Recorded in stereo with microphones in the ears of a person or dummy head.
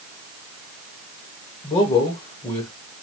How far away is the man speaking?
About 1.3 m.